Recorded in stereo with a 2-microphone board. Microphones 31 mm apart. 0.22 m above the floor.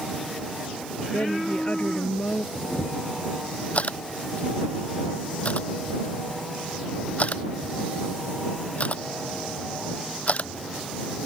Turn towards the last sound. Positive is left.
turn(degrees=45)  # may be behind; listen again after turning